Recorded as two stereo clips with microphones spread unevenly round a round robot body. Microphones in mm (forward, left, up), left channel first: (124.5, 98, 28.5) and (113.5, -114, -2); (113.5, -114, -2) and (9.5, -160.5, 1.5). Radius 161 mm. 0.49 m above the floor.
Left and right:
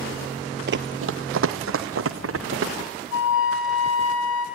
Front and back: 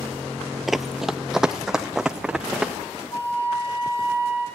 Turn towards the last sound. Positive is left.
turn(degrees=105)